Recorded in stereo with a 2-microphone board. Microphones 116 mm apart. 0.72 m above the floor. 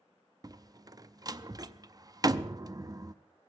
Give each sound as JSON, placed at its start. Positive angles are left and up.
{"t": 0.4, "sound": "a door slam", "side_deg": -35, "distance_m": 0.5}